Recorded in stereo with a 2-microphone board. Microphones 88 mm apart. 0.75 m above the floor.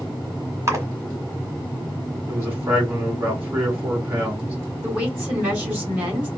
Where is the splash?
35° right (ahead or behind), 1.3 m.